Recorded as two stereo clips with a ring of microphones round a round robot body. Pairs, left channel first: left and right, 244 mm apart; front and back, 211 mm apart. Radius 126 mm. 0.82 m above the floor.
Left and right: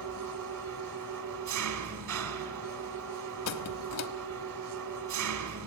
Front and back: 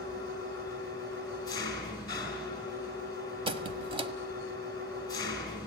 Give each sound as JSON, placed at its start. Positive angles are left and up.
{"t": 0.0, "sound": "an engine running", "azimuth_deg": -75, "distance_m": 2.5}
{"t": 3.5, "sound": "a squeak", "azimuth_deg": 115, "distance_m": 1.5}